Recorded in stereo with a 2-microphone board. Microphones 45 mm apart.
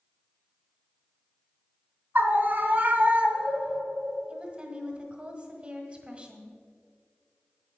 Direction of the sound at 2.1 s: 50° right (ahead or behind).